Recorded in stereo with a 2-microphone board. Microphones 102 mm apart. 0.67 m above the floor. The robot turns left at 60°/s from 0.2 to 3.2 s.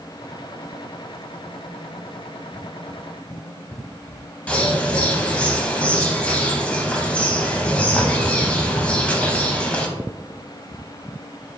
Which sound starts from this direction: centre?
A bird, at 4.5 s.